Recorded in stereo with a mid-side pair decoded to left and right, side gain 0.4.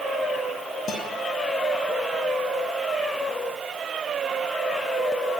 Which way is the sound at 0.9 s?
65° left.